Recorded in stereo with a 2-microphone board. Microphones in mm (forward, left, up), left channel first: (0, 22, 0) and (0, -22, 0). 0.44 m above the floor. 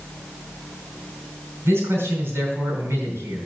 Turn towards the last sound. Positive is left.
turn(degrees=-70)  # may be behind; listen again after turning